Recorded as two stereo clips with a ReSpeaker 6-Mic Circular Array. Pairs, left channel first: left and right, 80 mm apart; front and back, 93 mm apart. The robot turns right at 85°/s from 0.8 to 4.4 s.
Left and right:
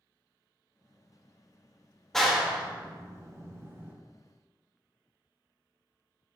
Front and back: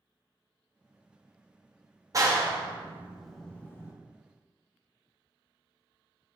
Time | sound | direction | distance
2.1 | a clap | 170° left | 0.6 m